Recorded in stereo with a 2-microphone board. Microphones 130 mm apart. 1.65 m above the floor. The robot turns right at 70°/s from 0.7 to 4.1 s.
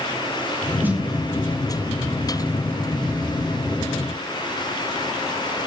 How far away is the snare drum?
About 1.1 m.